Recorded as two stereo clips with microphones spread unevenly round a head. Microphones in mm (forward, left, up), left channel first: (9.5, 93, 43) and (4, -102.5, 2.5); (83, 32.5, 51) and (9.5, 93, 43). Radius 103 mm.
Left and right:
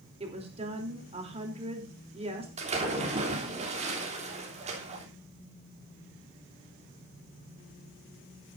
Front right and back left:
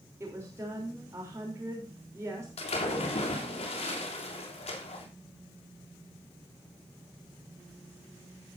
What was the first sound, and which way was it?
A woman speaking, 150° right.